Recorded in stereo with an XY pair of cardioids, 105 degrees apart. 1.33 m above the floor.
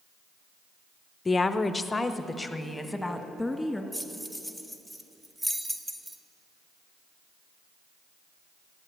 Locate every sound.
1.2 s a woman speaking: 25° left, 0.7 m; by 3.8 s 5° left, 2 m
3.9 s keys jangling: 10° right, 1.0 m